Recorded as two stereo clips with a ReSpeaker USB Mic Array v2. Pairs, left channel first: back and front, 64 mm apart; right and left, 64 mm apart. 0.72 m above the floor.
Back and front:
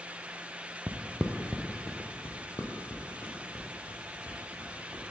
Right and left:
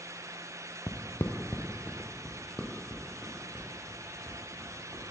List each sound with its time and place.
0.9 s footsteps: 45° right, 1.1 m; by 5.1 s straight behind, 4 m